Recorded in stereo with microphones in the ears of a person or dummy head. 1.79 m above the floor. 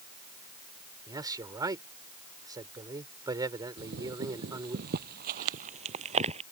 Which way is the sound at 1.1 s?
20° right (ahead or behind).